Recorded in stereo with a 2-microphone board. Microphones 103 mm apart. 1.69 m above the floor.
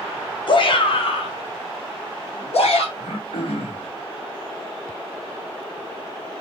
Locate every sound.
0.5 s a shout: 50° left (ahead or behind), 1.3 m; by 2.9 s 80° left, 2.5 m
3.0 s throat clearing: 75° left (ahead or behind), 3 m